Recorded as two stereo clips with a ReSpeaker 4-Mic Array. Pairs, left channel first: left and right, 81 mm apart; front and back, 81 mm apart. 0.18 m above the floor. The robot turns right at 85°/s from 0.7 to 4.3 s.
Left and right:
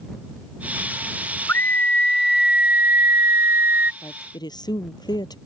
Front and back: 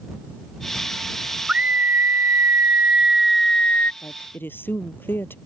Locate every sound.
1.5 s a scream: 115° left; by 3.9 s 40° right
4.0 s a woman speaking: 40° left; by 5.4 s 65° left